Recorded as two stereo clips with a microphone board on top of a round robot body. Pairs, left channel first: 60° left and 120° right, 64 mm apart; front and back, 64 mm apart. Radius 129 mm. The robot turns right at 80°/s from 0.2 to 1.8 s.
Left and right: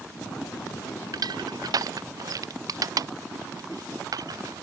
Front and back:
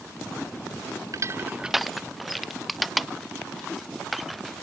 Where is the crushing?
145° right; by 4.6 s 90° right.